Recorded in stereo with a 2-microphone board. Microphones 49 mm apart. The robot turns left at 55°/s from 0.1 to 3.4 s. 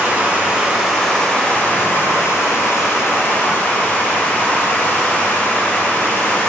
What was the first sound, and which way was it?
Running water, 135° right.